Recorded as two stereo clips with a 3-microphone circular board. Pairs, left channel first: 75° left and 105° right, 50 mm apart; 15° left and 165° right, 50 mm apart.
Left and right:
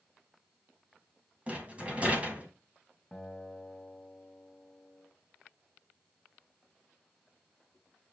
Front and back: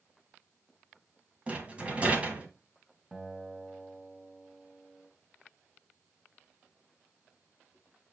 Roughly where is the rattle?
Behind right.